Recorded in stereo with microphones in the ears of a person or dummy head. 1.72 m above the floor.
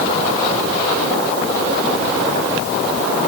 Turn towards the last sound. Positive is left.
No sound to turn to.